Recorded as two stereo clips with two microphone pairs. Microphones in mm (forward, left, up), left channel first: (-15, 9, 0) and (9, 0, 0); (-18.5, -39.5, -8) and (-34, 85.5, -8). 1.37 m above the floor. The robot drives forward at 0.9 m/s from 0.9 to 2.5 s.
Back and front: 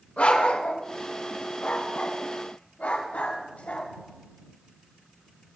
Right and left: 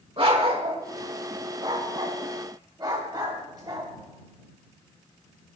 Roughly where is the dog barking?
Behind left.